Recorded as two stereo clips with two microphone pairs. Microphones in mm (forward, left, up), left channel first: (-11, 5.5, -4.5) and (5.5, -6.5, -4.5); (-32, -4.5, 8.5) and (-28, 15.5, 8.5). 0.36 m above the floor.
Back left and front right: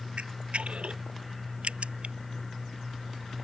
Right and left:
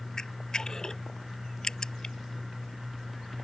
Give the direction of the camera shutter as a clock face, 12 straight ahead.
1 o'clock.